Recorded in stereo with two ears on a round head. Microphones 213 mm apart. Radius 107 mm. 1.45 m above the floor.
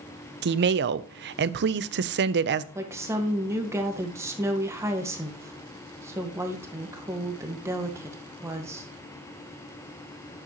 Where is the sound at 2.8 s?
10° right (ahead or behind), 1.4 m.